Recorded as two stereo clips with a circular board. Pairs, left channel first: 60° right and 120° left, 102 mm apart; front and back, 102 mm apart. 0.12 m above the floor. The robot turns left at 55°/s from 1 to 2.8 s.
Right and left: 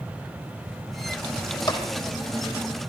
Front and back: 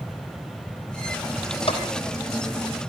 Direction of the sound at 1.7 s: 15° right.